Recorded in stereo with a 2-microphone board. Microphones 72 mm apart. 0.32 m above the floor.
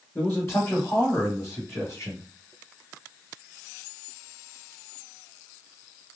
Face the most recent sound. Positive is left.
turn(degrees=45)  # may be behind; listen again after turning